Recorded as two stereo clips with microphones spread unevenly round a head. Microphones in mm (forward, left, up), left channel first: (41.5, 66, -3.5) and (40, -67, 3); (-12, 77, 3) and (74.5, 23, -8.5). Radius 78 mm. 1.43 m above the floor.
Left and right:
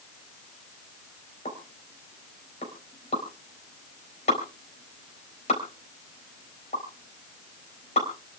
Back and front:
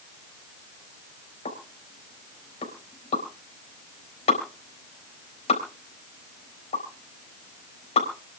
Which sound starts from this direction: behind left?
A pop, at 1.4 s.